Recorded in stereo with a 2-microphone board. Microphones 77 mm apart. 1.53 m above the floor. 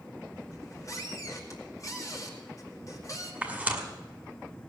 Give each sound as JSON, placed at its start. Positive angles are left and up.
{"t": 0.5, "sound": "a squeak", "side_deg": 45, "distance_m": 2.5}
{"t": 3.4, "sound": "tearing paper", "side_deg": -15, "distance_m": 2.0}